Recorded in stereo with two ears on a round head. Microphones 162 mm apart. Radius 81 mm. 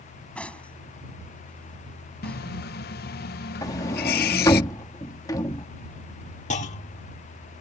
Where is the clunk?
40° left (ahead or behind).